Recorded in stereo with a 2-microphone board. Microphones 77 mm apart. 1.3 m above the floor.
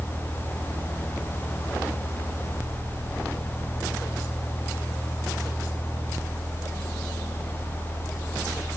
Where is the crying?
I don't hear crying.